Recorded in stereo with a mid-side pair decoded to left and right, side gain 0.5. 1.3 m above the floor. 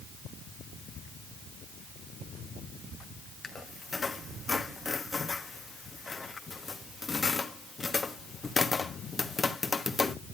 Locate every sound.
3.4 s a squeak: 25° left, 1.2 m